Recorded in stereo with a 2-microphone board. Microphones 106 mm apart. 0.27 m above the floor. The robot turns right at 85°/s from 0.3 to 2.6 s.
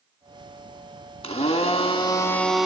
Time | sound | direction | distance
1.2 | a blender | 65° left | 0.5 m